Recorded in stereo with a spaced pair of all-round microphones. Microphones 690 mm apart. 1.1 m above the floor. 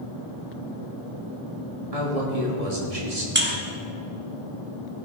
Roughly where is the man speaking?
Right.